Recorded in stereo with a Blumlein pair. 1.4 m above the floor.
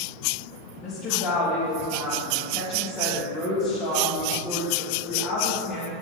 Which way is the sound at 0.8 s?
20° left.